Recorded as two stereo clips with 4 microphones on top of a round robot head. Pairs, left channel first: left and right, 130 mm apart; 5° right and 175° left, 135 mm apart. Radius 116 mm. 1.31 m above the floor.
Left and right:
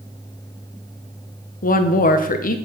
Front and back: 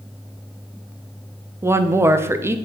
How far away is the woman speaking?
About 0.9 m.